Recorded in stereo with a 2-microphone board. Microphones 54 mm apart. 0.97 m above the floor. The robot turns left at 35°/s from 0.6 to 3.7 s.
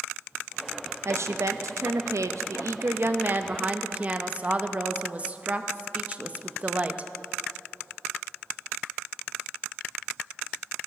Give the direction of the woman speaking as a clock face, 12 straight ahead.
2 o'clock.